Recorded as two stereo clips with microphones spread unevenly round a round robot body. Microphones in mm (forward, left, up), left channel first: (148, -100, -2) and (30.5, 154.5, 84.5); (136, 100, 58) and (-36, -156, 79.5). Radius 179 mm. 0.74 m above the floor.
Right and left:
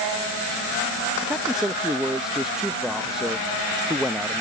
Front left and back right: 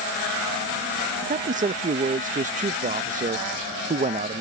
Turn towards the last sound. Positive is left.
turn(degrees=-105)